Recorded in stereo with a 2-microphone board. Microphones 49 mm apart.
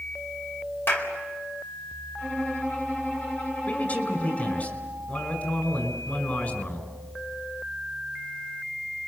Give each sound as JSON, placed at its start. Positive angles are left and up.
{"t": 0.9, "sound": "a clap", "side_deg": 55, "distance_m": 4.0}
{"t": 2.2, "sound": "a violin", "side_deg": 30, "distance_m": 5.5}
{"t": 3.7, "sound": "a man speaking", "side_deg": 35, "distance_m": 5.5}